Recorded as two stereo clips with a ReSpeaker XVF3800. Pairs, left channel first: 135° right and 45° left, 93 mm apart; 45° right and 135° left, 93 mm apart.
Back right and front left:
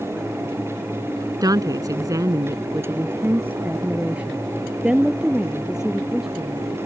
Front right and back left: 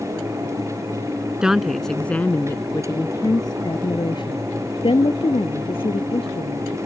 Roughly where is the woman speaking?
Ahead left.